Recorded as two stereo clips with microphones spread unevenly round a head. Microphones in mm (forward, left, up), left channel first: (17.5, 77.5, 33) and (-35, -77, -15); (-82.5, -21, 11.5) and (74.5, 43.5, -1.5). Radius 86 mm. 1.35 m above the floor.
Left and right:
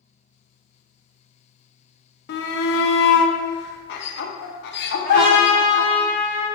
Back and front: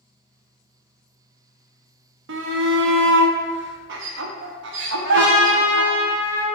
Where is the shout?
40° left, 0.5 m.